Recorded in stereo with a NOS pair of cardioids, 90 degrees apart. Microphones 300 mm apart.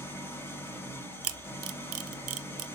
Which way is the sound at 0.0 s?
5° left.